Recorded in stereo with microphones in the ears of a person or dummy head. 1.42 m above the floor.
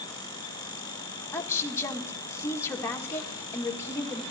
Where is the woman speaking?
15° left (ahead or behind), 1.4 m.